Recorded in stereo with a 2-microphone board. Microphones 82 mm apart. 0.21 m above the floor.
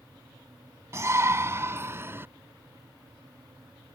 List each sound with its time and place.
0.9 s a shout: 35° right (ahead or behind); by 2.3 s 30° right (ahead or behind)